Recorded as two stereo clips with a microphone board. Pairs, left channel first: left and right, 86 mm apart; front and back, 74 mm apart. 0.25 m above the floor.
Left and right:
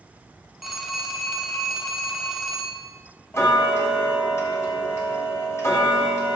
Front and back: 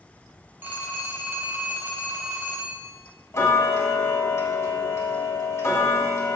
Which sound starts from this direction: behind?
A phone ringing, at 0.6 s.